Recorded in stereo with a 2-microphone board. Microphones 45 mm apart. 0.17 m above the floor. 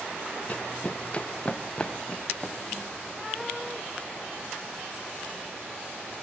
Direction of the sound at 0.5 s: 35° left (ahead or behind).